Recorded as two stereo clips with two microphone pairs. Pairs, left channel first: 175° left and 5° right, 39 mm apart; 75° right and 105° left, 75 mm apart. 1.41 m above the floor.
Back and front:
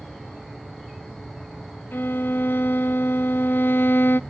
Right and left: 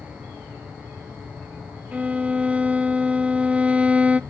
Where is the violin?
170° left, 0.5 m.